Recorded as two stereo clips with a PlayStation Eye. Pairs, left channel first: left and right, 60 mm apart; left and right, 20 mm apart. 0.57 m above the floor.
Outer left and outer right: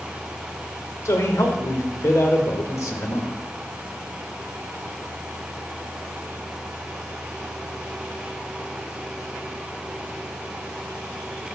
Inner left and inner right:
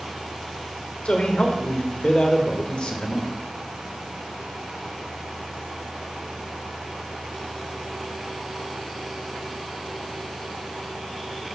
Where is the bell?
I don't hear a bell.